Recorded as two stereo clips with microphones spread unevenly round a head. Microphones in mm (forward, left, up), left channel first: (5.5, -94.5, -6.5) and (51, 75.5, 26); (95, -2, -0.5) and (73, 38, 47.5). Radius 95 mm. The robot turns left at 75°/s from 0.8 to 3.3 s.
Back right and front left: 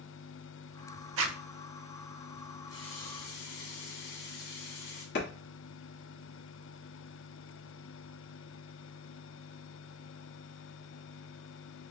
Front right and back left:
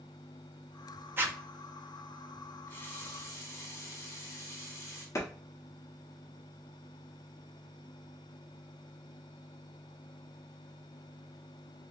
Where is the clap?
75° right, 1.3 m.